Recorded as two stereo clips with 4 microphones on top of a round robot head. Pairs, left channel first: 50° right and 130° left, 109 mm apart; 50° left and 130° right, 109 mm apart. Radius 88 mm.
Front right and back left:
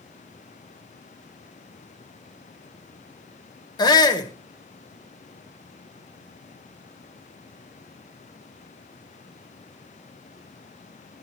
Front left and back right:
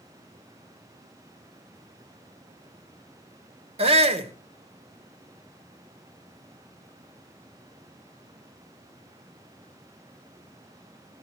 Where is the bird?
No bird in this recording.